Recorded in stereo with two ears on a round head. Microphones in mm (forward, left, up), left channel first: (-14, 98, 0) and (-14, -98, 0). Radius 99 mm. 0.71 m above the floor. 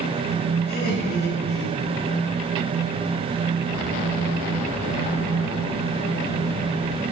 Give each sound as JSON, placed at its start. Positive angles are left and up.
{"t": 0.7, "sound": "laughter", "side_deg": 45, "distance_m": 5.0}